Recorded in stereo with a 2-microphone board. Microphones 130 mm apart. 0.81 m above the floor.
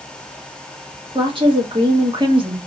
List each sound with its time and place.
1.1 s a woman speaking: 40° right (ahead or behind), 1.2 m